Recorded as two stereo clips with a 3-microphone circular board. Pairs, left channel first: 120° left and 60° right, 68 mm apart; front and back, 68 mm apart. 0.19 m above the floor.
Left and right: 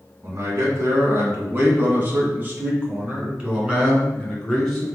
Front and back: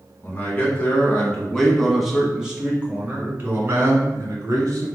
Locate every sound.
0.2 s a man speaking: 40° right, 1.6 m; by 4.9 s 145° right, 2 m